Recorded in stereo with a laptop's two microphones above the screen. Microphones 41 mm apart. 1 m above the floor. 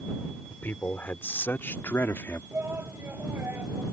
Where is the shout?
60° right (ahead or behind).